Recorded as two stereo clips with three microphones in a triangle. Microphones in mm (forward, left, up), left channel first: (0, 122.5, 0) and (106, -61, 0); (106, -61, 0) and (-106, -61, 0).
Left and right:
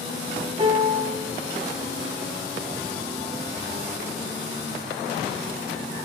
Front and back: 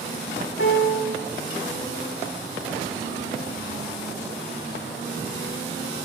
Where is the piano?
Straight ahead, 0.6 m.